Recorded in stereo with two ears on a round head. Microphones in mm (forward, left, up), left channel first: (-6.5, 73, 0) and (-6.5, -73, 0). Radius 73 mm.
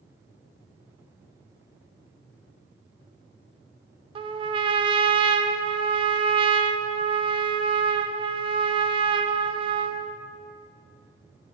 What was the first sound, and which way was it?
A trumpet, 35° right (ahead or behind).